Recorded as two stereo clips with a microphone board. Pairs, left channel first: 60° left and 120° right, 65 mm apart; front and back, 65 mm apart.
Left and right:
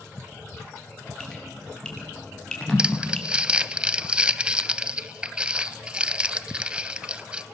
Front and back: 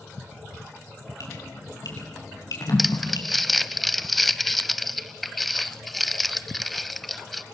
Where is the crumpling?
90° right, 0.6 m.